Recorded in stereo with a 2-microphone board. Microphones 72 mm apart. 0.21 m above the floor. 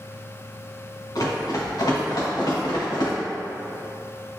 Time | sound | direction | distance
1.1 | running footsteps | 60° left (ahead or behind) | 1.7 m